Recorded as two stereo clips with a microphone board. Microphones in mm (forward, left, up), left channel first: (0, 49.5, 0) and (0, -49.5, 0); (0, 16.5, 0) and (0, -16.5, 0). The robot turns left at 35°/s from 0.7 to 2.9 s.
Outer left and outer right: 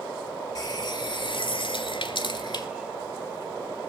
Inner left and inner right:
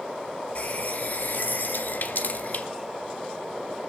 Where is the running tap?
130° left, 1.9 m; by 2.7 s 60° left, 1.9 m.